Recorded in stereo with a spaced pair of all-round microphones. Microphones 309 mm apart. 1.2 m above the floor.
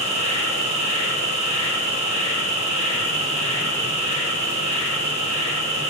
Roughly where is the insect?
Centre.